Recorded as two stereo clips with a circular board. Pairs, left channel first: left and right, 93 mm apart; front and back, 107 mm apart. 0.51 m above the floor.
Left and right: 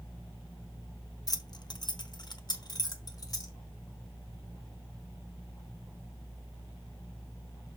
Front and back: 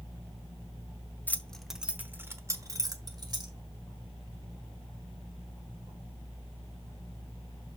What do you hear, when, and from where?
1.3 s keys jangling: 65° left, 0.7 m; by 3.5 s 135° left, 1.6 m